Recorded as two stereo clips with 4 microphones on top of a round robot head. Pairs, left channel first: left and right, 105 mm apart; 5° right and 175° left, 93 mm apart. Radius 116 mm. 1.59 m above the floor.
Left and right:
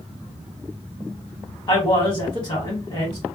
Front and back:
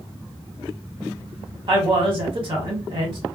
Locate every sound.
1.7 s a man speaking: 140° left, 1.4 m